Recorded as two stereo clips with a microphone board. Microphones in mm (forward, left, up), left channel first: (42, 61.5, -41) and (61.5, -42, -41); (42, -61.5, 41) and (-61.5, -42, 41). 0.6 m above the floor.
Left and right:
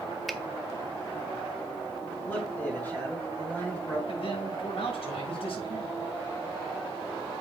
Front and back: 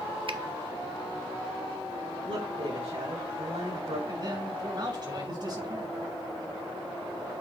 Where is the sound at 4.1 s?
125° left, 6 m.